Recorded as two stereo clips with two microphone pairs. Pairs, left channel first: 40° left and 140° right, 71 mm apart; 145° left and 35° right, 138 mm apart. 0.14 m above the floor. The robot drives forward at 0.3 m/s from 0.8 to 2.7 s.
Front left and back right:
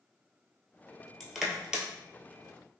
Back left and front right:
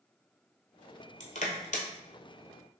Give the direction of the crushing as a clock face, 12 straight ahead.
8 o'clock.